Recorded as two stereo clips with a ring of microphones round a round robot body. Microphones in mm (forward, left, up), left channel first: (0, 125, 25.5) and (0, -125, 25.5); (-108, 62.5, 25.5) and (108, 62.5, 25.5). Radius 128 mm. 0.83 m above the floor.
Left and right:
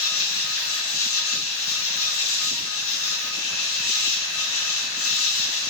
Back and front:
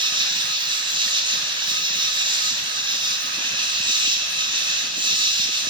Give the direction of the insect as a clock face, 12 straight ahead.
10 o'clock.